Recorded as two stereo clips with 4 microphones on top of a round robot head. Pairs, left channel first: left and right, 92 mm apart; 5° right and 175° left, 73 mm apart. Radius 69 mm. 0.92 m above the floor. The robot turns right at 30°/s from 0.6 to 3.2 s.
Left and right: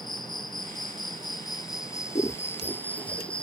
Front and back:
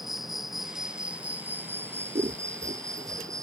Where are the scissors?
145° left; by 3.3 s 175° left.